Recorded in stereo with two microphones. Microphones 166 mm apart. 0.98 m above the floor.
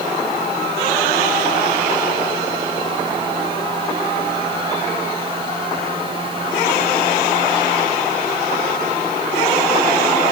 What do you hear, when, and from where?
Only background noise.